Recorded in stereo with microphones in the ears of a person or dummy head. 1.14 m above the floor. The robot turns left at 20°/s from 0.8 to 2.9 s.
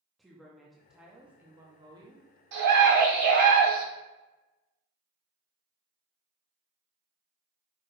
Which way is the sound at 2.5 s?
55° right (ahead or behind).